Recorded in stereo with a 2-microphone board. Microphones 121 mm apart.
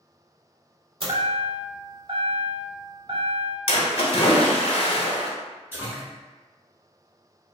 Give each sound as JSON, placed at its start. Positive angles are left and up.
{"t": 1.0, "sound": "a chime", "side_deg": -45, "distance_m": 0.7}
{"t": 3.7, "sound": "a splash", "side_deg": 55, "distance_m": 0.9}
{"t": 5.7, "sound": "a splash", "side_deg": -20, "distance_m": 0.9}